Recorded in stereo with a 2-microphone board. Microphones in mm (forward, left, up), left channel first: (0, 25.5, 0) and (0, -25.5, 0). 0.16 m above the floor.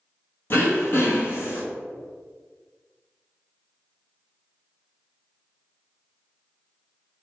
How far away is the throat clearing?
About 1.3 m.